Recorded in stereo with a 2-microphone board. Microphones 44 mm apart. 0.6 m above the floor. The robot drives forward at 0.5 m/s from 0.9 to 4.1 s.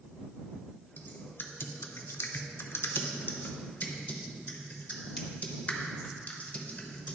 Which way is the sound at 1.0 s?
45° left (ahead or behind).